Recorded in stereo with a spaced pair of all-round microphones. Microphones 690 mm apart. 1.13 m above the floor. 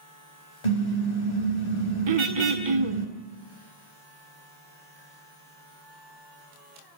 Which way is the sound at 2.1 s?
45° right (ahead or behind).